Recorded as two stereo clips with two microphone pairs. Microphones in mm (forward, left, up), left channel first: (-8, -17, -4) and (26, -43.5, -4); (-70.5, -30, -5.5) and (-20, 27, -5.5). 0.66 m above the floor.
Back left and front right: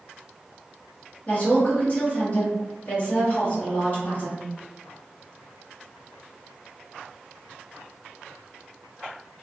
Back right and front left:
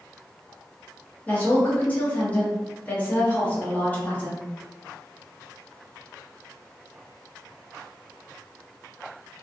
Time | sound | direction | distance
1.3 | a woman speaking | 175° left | 1.1 m